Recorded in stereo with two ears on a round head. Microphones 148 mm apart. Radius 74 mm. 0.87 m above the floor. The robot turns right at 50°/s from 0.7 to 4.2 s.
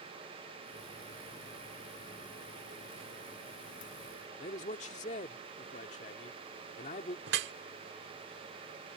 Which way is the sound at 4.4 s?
45° left (ahead or behind).